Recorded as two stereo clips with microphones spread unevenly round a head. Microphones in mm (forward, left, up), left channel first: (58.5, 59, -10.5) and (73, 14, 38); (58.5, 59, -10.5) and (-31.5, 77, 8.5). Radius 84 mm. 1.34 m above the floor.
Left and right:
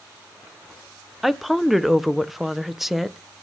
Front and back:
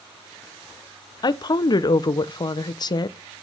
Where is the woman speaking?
25° left, 0.8 m.